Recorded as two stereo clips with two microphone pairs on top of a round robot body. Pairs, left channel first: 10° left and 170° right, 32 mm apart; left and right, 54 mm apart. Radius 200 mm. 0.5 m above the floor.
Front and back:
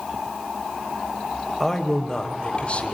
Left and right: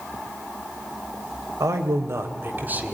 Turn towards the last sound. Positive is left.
turn(degrees=-25)